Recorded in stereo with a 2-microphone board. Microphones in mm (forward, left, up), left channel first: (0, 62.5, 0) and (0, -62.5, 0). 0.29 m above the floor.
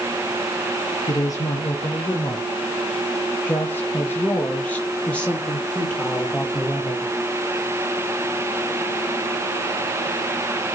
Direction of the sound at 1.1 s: 35° left (ahead or behind).